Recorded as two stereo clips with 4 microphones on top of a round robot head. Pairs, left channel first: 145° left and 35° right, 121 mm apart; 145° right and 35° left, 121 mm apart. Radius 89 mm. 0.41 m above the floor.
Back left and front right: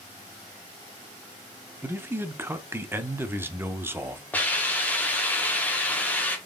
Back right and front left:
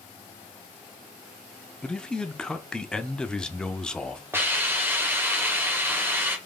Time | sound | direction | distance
1.8 | a man speaking | 70° right | 0.8 m
4.3 | a hiss | 85° left | 1.5 m